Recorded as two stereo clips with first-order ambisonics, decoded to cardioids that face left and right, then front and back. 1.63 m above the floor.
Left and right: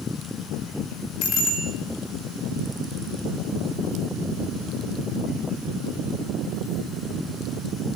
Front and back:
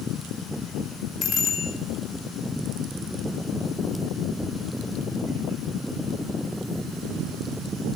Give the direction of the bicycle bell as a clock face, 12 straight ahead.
10 o'clock.